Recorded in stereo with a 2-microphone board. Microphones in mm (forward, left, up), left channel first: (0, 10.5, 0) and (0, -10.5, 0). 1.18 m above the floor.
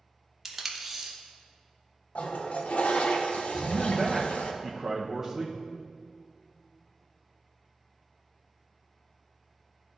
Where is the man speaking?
15° right (ahead or behind), 0.6 m.